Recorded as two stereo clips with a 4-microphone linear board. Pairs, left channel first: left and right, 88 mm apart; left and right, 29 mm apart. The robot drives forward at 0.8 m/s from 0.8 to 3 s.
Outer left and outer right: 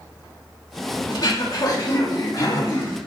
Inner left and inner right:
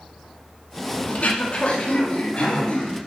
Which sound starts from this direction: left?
Throat clearing, at 1.1 s.